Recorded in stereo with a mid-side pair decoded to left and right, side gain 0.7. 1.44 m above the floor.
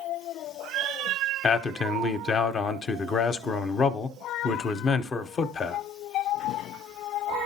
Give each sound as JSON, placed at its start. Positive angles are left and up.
{"t": 1.4, "sound": "a man speaking", "azimuth_deg": 30, "distance_m": 0.8}